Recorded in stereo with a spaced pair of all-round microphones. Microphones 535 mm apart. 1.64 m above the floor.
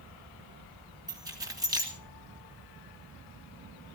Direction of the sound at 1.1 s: 5° right (ahead or behind).